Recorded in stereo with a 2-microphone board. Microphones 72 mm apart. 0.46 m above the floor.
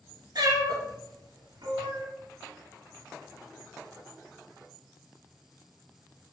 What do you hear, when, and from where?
0.3 s a cat meowing: 70° right (ahead or behind), 1.6 m; by 2.1 s 75° right (ahead or behind), 0.8 m